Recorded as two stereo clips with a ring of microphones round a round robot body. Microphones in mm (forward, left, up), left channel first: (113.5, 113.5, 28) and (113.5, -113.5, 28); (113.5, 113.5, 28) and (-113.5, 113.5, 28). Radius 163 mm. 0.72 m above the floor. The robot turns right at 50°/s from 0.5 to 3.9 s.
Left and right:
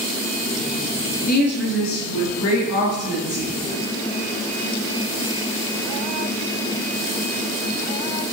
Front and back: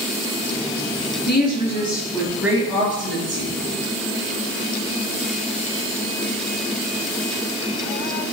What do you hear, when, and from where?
1.3 s a woman speaking: 40° left, 5 m; by 3.5 s 150° left, 5 m